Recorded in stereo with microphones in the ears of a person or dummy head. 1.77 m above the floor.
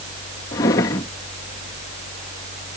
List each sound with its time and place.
0.5 s a drawer: 15° left (ahead or behind)